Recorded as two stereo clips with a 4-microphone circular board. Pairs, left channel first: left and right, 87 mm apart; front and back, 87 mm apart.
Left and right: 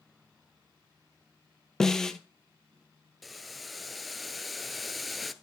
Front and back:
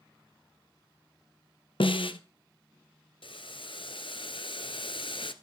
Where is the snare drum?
5° left, 0.9 m.